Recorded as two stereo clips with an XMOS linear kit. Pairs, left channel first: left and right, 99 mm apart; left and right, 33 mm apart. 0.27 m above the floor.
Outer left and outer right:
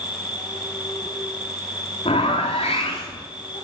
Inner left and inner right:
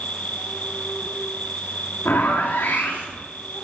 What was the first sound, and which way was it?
An insect, 50° left (ahead or behind).